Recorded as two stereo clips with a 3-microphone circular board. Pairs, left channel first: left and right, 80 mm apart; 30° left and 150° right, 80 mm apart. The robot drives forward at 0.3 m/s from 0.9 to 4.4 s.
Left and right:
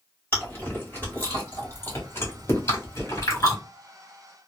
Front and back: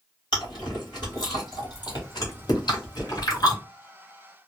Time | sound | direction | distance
0.3 | chewing | 30° left | 1.8 m